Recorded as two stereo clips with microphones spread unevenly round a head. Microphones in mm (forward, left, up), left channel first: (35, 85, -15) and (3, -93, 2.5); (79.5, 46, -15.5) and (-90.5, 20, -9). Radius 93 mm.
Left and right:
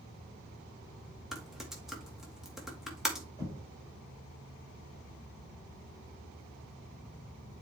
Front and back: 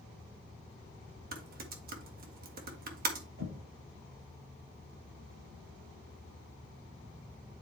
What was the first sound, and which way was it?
Typing on a keyboard, 175° left.